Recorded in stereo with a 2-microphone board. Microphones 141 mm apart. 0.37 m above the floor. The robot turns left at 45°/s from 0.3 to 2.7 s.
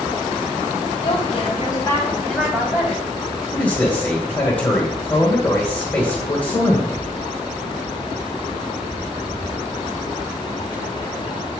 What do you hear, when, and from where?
1.0 s a woman speaking: 65° left, 2.5 m; by 3.0 s 15° right, 2.5 m
3.5 s a man speaking: 10° left (ahead or behind), 1.6 m